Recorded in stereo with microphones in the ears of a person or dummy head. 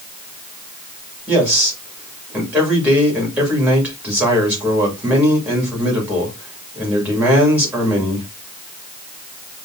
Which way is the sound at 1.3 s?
10° right (ahead or behind).